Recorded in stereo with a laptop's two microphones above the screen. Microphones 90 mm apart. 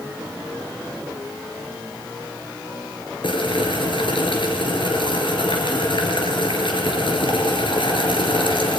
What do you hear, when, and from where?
3.2 s boiling: 70° left (ahead or behind), 3.5 m